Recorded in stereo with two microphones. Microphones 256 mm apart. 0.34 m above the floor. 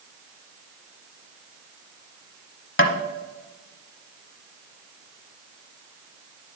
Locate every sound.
2.8 s tapping: 50° left (ahead or behind), 0.9 m